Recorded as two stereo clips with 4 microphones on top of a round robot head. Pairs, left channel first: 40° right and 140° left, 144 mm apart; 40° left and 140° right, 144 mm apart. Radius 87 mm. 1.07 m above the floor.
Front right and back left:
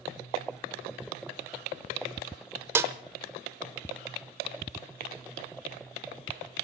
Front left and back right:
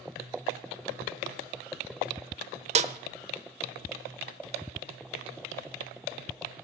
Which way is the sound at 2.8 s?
155° right.